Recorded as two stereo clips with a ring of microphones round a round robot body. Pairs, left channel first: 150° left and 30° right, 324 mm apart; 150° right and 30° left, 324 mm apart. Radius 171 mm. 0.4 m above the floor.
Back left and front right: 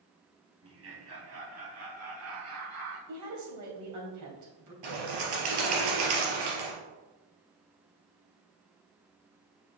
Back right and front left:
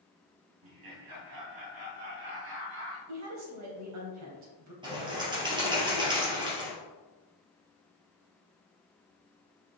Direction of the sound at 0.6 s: 15° left.